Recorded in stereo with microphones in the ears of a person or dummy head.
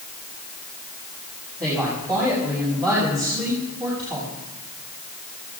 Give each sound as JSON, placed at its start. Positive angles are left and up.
{"t": 1.6, "sound": "a woman speaking", "side_deg": -20, "distance_m": 7.5}